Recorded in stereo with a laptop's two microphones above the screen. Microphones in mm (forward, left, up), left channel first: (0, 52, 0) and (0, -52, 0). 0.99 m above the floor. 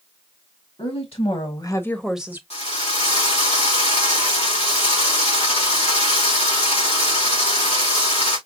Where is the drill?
75° left (ahead or behind), 1.8 m.